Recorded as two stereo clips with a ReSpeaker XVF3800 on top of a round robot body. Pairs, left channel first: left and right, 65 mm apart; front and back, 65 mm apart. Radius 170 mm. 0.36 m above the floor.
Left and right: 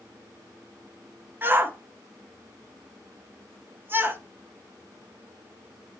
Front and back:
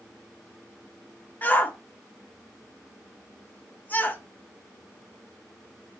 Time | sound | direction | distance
1.4 | a shout | 50° right | 1.0 m